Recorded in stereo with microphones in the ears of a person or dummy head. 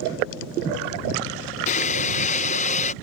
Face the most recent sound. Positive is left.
turn(degrees=40)  # may be behind; listen again after turning